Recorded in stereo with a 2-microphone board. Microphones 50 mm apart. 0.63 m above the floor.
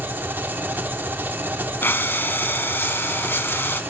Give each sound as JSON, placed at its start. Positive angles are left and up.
{"t": 0.0, "sound": "an engine running", "side_deg": -40, "distance_m": 1.2}
{"t": 1.8, "sound": "breathing", "side_deg": 50, "distance_m": 0.8}